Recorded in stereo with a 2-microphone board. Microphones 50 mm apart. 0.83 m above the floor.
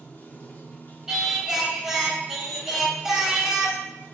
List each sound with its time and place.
0.0 s running water: 35° left (ahead or behind), 1.2 m
1.1 s singing: 5° right (ahead or behind), 1.4 m